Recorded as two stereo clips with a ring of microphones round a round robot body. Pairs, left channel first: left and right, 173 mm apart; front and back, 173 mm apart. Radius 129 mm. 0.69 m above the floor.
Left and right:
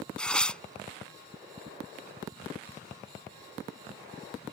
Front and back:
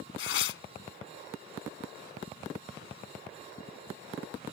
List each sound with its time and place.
0.2 s tearing paper: 5° left